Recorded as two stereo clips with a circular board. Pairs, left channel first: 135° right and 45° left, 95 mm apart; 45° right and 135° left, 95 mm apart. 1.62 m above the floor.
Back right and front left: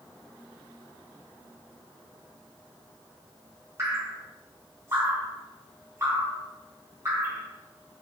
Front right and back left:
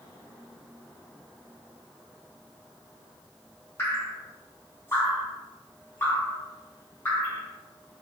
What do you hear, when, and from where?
3.8 s dripping: 5° left, 1.1 m